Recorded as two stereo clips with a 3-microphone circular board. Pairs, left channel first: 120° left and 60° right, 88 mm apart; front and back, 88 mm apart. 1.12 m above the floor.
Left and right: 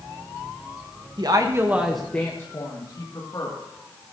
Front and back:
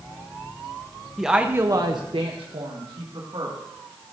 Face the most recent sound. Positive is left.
turn(degrees=155)